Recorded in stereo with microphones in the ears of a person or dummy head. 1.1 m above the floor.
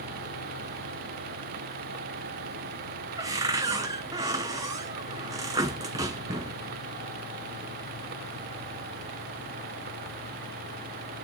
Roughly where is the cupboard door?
Centre.